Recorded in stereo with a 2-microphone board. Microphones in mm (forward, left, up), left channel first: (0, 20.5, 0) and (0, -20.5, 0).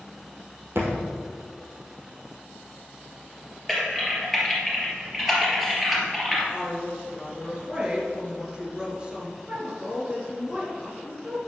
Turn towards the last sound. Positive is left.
turn(degrees=-20)  # may be behind; listen again after turning